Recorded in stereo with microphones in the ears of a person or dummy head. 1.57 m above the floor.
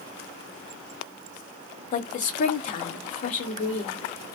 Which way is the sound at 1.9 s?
45° left (ahead or behind).